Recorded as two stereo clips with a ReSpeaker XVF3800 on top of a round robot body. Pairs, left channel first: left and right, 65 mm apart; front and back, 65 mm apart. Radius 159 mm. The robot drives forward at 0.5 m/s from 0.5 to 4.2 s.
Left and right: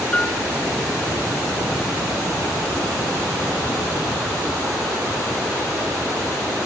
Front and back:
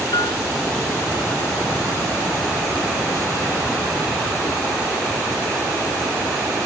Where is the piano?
20° left.